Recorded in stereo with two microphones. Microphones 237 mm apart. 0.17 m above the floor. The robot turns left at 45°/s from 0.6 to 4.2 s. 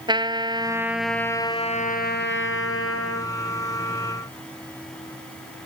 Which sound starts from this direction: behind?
A trumpet, at 0.1 s.